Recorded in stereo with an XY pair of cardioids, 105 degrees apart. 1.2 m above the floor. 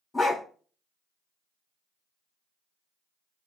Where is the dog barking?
25° left, 2.5 m.